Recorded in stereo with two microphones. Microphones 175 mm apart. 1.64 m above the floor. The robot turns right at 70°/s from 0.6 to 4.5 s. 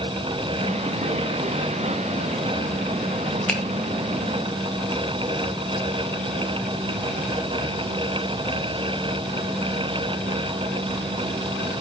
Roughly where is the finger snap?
Centre.